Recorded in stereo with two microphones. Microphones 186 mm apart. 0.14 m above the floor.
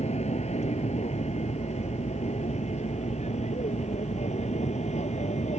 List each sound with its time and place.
0.0 s an aircraft: 35° left (ahead or behind)